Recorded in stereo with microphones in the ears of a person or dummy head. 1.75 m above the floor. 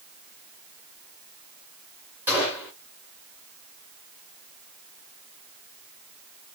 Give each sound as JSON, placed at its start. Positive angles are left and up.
{"t": 2.3, "sound": "a gunshot", "side_deg": -10, "distance_m": 1.6}